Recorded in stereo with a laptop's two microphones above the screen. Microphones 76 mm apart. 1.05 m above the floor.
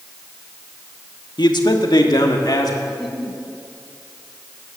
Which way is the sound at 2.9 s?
Centre (ahead or behind).